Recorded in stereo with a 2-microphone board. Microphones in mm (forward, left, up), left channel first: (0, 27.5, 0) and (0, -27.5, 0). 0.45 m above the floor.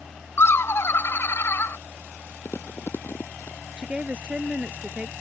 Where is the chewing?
50° left (ahead or behind).